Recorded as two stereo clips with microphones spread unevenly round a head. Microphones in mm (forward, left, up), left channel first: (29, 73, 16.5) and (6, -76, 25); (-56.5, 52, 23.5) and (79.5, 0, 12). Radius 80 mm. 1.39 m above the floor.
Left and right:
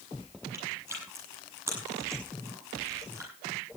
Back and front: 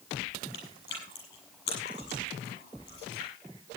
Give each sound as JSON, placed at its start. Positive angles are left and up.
{"t": 0.5, "sound": "chewing", "azimuth_deg": -175, "distance_m": 7.0}